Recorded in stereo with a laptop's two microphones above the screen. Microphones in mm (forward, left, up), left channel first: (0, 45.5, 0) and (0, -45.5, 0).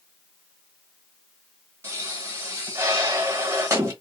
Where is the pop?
30° right (ahead or behind), 1.2 m.